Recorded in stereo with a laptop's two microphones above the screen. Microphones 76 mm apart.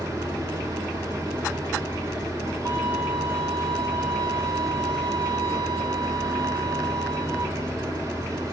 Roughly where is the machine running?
Right.